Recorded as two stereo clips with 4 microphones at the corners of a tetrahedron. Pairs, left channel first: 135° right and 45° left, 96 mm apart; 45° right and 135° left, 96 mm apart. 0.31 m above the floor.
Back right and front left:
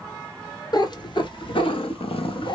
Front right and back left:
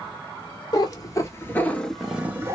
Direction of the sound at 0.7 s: 90° right.